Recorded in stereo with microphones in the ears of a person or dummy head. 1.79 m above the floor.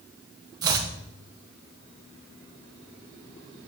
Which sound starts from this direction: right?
Chopping, at 0.6 s.